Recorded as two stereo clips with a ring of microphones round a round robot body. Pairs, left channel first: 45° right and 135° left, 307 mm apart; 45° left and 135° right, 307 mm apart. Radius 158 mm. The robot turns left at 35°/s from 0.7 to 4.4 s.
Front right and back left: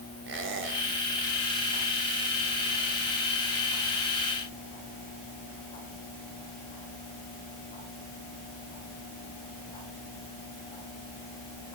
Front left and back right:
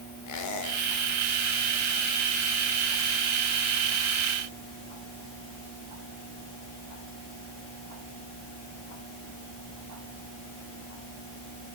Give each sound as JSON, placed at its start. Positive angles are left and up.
{"t": 0.3, "sound": "a squeak", "azimuth_deg": 80, "distance_m": 2.5}